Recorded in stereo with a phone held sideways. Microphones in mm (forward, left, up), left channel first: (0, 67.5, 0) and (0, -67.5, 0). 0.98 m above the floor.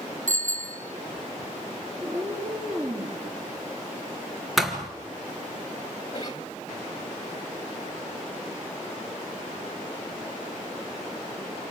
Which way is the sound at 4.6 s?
Centre (ahead or behind).